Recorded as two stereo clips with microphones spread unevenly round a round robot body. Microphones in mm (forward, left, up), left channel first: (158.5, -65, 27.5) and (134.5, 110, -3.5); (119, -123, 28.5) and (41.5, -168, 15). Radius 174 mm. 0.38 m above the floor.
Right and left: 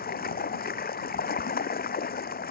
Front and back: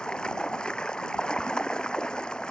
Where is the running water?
50° right.